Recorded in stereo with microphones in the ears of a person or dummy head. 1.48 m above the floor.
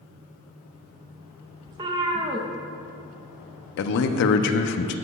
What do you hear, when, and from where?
1.7 s a cat meowing: 25° right (ahead or behind), 0.7 m
3.8 s a man speaking: 60° left (ahead or behind), 0.6 m